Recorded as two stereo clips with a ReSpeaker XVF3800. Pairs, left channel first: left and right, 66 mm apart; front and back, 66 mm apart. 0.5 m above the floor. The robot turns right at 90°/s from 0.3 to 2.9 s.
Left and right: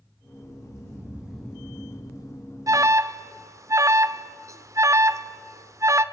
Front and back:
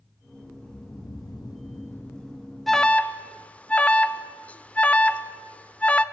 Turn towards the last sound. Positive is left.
turn(degrees=-65)